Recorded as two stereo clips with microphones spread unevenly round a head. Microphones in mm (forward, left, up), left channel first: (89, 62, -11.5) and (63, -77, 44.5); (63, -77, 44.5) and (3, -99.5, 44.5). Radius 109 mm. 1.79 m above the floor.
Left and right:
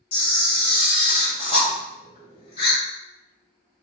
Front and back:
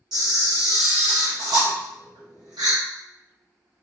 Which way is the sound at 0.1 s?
155° left.